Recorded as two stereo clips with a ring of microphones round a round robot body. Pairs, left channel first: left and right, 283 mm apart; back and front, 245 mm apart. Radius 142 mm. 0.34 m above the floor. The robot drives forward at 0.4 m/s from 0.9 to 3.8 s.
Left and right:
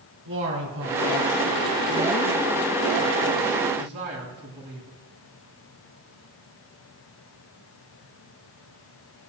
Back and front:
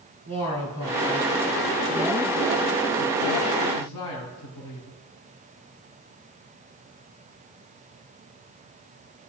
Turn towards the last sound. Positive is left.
turn(degrees=-145)